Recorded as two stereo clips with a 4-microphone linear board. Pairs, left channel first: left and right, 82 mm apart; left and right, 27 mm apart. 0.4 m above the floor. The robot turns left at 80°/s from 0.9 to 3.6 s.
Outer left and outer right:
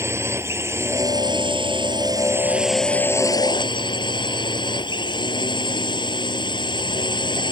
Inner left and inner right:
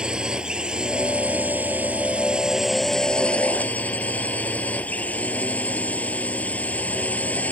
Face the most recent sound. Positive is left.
turn(degrees=110)